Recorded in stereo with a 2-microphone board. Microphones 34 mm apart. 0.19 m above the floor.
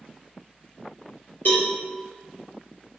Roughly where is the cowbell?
Left.